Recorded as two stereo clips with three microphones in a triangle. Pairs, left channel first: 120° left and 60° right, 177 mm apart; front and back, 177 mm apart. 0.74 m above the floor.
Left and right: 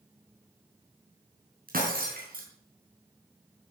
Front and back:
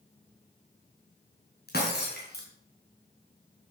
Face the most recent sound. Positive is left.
turn(degrees=-25)